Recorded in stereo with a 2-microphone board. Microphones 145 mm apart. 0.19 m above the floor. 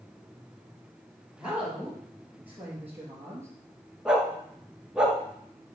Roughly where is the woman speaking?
Centre.